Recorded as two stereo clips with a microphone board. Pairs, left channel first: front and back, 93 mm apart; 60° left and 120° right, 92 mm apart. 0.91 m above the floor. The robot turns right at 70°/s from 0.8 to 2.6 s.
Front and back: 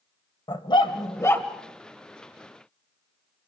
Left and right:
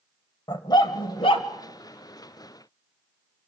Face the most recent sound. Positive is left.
turn(degrees=150)